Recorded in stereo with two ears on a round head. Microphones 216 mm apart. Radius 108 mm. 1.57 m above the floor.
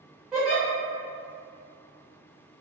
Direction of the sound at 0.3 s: 5° right (ahead or behind).